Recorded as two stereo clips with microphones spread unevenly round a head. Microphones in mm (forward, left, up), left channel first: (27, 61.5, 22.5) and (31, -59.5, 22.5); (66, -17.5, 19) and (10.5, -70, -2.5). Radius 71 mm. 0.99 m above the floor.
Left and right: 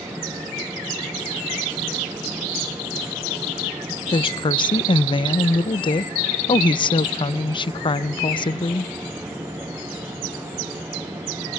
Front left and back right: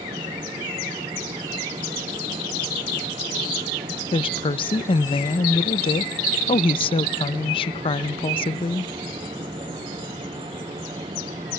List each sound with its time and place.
4.1 s a woman speaking: 45° left, 0.5 m